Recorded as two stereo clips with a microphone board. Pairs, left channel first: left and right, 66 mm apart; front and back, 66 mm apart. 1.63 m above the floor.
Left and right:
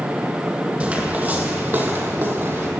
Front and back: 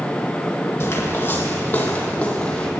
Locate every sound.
0.8 s footsteps: 25° right, 2.5 m; by 2.7 s 70° right, 2 m